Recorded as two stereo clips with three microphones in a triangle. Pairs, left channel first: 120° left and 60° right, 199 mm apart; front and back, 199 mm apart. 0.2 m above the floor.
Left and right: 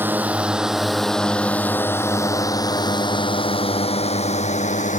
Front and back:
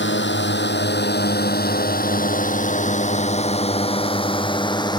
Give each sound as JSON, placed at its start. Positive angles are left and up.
{"t": 0.0, "sound": "a drone", "azimuth_deg": 20}